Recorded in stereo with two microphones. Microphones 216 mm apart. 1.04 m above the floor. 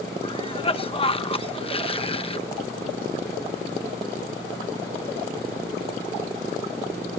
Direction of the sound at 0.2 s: 25° left (ahead or behind).